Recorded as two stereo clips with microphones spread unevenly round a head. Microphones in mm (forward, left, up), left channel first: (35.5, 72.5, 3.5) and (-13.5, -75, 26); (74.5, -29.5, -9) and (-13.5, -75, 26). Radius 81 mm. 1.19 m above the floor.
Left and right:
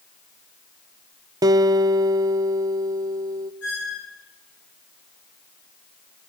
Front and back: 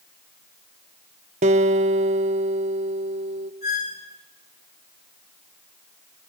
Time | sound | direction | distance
1.4 | a guitar | straight behind | 0.8 m
3.6 | a squeak | 65° left | 9.5 m